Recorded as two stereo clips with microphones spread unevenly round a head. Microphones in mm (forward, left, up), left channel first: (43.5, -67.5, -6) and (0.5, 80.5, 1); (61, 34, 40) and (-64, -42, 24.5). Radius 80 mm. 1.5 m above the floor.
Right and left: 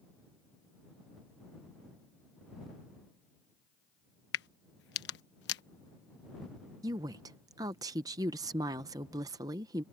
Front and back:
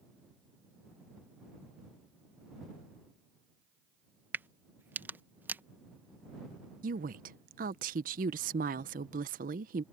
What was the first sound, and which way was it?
A crack, 70° right.